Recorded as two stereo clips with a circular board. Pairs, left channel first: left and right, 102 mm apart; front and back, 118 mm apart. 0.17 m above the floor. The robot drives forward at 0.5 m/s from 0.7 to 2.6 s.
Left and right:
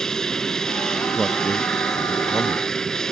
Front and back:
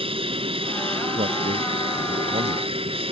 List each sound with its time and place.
0.0 s an aircraft: 175° left
1.1 s a man speaking: straight behind